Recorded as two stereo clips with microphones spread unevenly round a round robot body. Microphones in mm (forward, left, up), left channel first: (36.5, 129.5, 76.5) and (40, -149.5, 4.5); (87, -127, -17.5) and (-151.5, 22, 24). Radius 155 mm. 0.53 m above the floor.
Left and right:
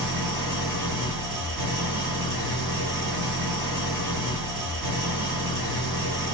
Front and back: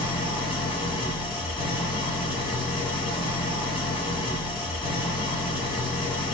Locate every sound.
0.0 s an engine running: 105° right, 1.9 m